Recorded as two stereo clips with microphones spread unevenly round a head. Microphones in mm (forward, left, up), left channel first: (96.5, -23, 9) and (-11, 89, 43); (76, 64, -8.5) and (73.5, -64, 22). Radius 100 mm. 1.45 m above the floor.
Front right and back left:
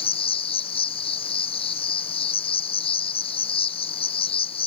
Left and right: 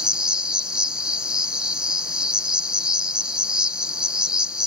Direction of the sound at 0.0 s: 5° right.